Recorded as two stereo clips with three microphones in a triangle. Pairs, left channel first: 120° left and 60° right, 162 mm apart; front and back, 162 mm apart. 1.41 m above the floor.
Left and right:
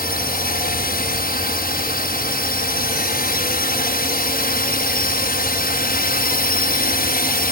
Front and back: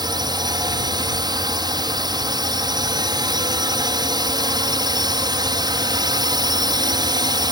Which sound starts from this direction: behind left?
A drone, at 0.0 s.